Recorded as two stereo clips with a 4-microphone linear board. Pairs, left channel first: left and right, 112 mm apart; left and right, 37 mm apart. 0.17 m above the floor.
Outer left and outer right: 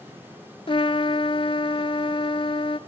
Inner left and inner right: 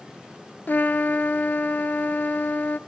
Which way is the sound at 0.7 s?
55° left (ahead or behind).